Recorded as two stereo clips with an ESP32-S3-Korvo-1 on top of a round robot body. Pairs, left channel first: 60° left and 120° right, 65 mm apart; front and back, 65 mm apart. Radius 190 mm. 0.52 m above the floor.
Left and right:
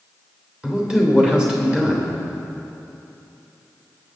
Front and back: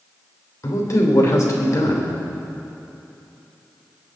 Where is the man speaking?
40° right, 3 m.